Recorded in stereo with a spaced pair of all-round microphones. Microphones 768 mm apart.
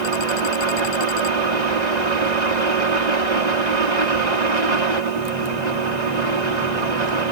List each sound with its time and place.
0.0 s a fan: 60° right (ahead or behind)